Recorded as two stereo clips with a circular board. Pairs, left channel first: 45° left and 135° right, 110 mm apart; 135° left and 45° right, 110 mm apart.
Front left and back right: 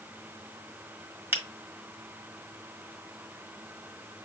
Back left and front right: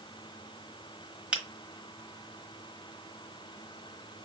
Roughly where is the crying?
No crying in this recording.